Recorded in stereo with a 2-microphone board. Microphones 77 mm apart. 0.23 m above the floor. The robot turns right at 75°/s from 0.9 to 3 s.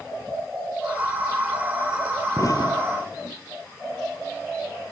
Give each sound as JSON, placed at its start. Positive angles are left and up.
{"t": 2.4, "sound": "an explosion", "side_deg": 40}